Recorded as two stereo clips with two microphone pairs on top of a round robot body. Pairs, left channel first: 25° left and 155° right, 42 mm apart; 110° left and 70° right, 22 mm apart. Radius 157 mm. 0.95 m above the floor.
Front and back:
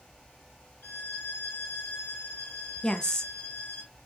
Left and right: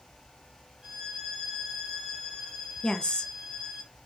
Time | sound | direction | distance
0.8 | a violin | 5° right | 0.9 m
2.8 | a woman speaking | 85° left | 0.7 m